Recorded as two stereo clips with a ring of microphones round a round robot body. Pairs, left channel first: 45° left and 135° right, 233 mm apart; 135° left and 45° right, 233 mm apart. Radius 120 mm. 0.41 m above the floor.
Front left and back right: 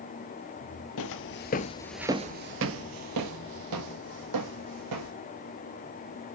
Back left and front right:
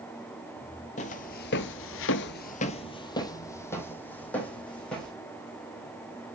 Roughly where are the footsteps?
Left.